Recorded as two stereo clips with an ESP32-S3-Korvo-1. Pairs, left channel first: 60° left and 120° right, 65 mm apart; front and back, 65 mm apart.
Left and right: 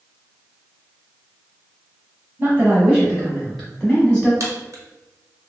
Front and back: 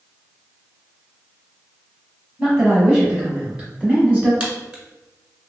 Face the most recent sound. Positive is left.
turn(degrees=-110)